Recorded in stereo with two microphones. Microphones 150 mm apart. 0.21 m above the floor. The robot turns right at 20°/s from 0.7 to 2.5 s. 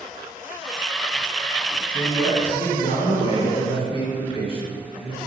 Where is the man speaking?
30° left (ahead or behind), 1.4 m; by 5.2 s 35° left (ahead or behind), 1.4 m.